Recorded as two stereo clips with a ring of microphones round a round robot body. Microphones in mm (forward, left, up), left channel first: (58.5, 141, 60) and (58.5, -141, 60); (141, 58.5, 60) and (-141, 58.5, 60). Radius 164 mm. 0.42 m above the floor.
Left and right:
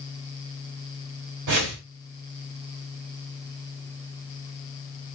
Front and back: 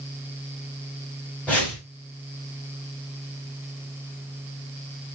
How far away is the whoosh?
About 1.1 m.